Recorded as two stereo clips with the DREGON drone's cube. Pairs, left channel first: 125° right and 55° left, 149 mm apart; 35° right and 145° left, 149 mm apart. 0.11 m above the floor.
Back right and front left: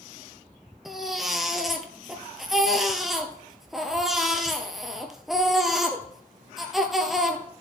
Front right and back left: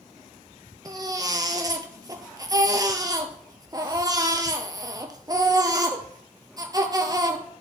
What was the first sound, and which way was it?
A baby crying, 140° left.